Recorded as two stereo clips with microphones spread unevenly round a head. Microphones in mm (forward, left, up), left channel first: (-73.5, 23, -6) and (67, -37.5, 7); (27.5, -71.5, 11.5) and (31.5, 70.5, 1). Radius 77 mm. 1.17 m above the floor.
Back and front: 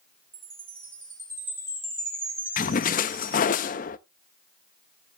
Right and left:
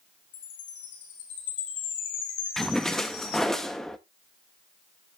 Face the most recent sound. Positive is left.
turn(degrees=-175)